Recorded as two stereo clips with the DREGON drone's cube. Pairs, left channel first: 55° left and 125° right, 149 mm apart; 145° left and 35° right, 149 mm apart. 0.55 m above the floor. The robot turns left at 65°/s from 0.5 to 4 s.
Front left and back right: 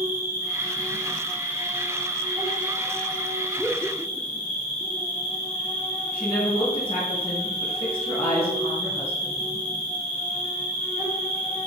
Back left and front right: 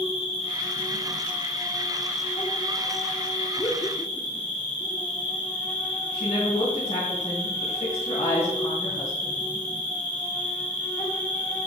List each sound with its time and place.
0.0 s an insect: 60° right, 3 m; by 11.7 s 75° left, 3 m
3.6 s laughter: 140° left, 0.8 m; by 4.5 s 115° left, 0.8 m
6.1 s a woman speaking: 105° left, 4.5 m